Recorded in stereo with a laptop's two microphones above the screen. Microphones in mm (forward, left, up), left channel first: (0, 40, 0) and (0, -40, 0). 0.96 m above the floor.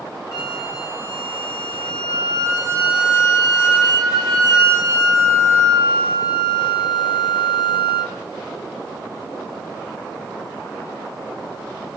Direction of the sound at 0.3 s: 45° left (ahead or behind).